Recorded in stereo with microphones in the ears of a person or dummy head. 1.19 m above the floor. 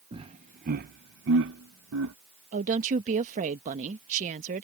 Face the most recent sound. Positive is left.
turn(degrees=-40)  # may be behind; listen again after turning